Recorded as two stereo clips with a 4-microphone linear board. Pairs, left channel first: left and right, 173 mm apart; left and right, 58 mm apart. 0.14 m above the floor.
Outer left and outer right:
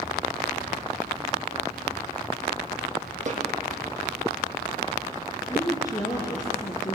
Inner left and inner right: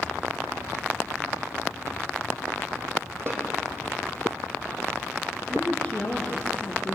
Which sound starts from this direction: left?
A woman speaking, at 5.5 s.